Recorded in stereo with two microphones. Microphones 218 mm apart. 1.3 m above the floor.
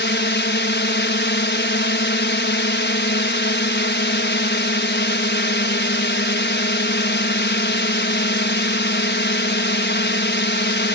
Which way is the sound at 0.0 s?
55° left (ahead or behind).